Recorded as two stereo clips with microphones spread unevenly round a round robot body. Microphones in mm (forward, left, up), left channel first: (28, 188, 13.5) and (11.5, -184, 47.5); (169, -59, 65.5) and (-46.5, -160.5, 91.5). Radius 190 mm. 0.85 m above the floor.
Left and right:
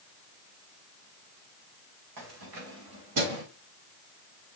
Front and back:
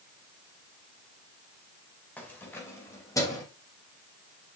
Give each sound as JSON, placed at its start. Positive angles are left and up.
{"t": 2.2, "sound": "keys jangling", "azimuth_deg": -60, "distance_m": 3.0}